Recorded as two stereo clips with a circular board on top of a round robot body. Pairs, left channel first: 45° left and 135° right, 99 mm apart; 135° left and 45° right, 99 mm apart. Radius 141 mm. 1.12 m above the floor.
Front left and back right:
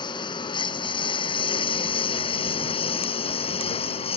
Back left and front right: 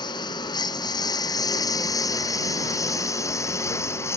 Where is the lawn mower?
90° left; by 4.2 s 70° left.